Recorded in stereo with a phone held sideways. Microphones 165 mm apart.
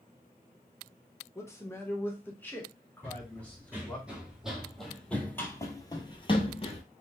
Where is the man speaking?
20° left (ahead or behind), 1.0 m; by 4.0 s 5° left (ahead or behind), 2 m.